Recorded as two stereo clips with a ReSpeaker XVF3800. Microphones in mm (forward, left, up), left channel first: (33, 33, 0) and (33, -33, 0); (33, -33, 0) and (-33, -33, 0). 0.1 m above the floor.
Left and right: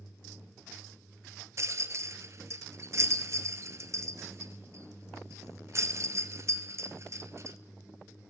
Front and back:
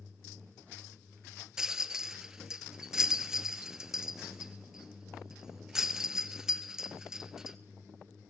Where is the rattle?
100° right, 0.7 m.